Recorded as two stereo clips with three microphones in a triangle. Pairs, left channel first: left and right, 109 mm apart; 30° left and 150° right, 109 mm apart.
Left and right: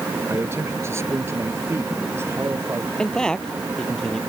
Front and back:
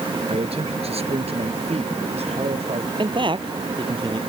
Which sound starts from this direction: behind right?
A man speaking, at 0.3 s.